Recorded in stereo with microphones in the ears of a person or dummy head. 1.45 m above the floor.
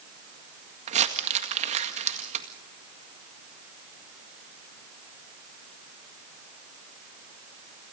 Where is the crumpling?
35° right (ahead or behind), 1.8 m.